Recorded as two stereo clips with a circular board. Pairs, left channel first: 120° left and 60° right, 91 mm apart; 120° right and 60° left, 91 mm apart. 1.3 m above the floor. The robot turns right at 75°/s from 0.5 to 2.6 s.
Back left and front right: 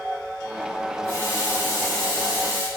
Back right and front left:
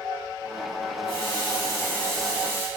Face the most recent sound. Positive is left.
turn(degrees=0)